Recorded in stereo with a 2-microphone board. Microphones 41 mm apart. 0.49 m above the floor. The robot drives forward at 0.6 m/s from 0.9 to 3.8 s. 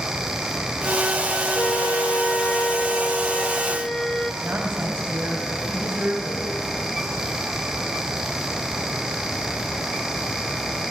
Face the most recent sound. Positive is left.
turn(degrees=-35)  # may be behind; listen again after turning